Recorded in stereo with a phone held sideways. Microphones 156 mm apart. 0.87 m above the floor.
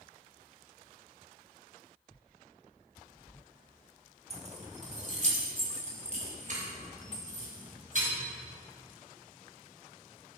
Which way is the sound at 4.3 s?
45° right (ahead or behind).